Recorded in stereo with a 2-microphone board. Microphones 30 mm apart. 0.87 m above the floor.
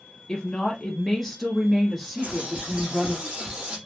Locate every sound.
0.3 s a woman speaking: 30° left (ahead or behind), 1.0 m; by 3.2 s 15° right (ahead or behind), 2.0 m
2.2 s a bird: 40° right (ahead or behind), 2.5 m